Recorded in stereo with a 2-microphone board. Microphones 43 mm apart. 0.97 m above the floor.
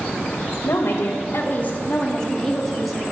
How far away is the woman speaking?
About 0.6 m.